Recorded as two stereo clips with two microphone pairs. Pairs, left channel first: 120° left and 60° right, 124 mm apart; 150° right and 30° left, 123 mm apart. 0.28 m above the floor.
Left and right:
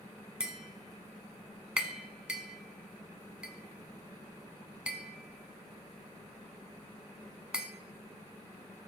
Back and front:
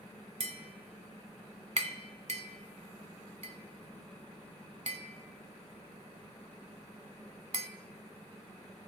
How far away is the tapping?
About 1.1 m.